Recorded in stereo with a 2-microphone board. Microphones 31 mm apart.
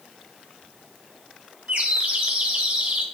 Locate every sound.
1.7 s a bird: 50° right (ahead or behind), 1.8 m